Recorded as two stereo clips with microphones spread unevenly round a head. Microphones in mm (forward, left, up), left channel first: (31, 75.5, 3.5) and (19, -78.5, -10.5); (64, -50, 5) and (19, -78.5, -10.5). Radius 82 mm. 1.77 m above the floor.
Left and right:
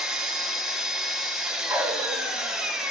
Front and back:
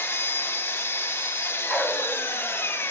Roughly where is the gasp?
I don't hear a gasp.